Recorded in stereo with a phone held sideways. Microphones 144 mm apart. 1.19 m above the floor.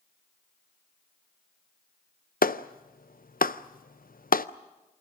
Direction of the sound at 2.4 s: 80° left.